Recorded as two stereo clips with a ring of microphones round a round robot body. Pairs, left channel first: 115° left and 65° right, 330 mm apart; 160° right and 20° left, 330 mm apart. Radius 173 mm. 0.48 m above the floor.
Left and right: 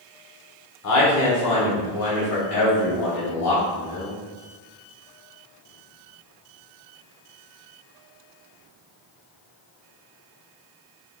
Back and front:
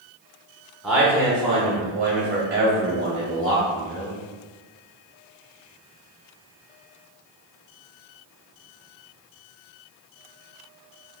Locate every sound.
0.8 s a man speaking: 110° left, 1.5 m; by 4.2 s 70° left, 3.5 m